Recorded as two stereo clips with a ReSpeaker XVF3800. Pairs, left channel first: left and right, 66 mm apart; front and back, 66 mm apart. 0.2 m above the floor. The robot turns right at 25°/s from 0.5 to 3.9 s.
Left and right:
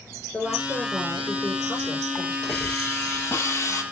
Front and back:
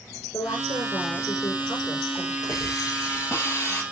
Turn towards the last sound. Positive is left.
turn(degrees=60)